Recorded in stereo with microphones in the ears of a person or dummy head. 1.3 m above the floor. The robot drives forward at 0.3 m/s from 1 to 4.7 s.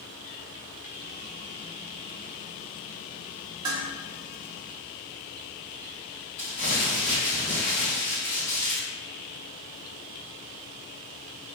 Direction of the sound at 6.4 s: 50° left (ahead or behind).